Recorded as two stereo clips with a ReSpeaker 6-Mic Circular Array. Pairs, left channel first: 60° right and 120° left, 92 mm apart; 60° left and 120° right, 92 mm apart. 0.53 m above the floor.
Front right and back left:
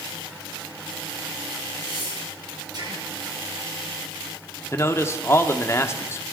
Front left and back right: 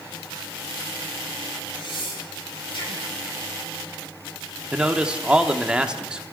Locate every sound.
1.8 s breathing: 80° left, 7 m
4.7 s a man speaking: 50° right, 0.9 m